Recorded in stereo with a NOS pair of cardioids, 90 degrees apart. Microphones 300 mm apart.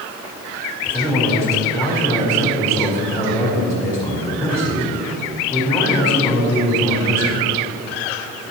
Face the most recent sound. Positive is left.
turn(degrees=20)